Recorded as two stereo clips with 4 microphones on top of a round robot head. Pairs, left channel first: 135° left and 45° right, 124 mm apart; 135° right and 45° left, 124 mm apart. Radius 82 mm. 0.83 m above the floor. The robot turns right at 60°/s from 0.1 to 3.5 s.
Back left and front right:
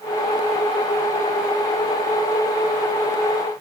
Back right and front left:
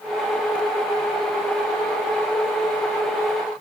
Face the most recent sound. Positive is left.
No sound to turn to.